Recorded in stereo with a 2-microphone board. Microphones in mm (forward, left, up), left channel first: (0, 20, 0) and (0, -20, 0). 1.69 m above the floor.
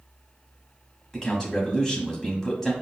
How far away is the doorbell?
No doorbell in this recording.